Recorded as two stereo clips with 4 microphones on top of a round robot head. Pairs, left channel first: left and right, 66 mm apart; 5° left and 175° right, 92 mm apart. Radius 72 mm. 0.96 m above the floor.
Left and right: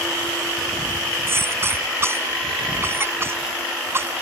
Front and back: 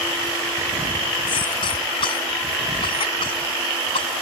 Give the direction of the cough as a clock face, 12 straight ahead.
1 o'clock.